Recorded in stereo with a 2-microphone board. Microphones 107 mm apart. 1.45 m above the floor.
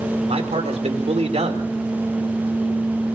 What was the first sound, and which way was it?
A man speaking, 85° right.